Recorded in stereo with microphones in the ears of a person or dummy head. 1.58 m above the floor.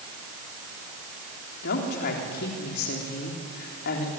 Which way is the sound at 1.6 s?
55° left (ahead or behind).